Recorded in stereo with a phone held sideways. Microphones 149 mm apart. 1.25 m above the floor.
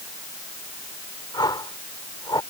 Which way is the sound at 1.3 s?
30° left (ahead or behind).